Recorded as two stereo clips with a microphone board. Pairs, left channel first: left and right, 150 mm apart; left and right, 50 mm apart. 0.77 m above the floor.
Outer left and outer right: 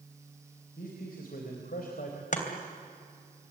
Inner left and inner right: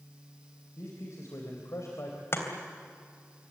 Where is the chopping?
55° left (ahead or behind), 3 m.